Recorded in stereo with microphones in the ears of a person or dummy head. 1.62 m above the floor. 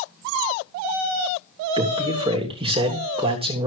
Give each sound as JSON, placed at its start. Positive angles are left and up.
{"t": 1.8, "sound": "a man speaking", "side_deg": -30, "distance_m": 3.0}